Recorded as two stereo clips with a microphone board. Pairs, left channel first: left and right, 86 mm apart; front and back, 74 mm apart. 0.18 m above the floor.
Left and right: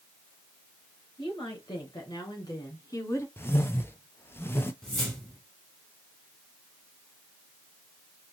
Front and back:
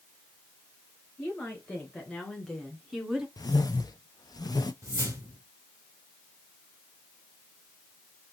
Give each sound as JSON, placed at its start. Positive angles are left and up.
{"t": 1.2, "sound": "a woman speaking", "azimuth_deg": 70, "distance_m": 3.5}
{"t": 3.4, "sound": "a whoosh", "azimuth_deg": 30, "distance_m": 0.6}
{"t": 4.8, "sound": "a whoosh", "azimuth_deg": 175, "distance_m": 1.7}